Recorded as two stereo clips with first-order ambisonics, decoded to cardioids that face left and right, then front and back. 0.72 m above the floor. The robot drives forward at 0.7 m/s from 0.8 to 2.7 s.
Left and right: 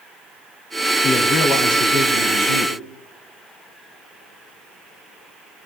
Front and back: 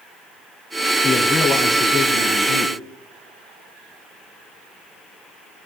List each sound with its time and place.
1.0 s a man speaking: 90° left, 4 m; by 2.8 s 105° left, 4.5 m